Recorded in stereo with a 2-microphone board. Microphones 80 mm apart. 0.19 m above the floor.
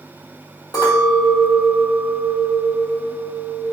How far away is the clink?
About 1.8 m.